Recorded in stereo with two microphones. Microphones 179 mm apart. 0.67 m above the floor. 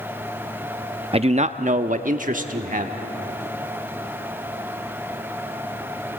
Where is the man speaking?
35° right (ahead or behind), 0.5 m; by 3.0 s 50° right (ahead or behind), 1.4 m.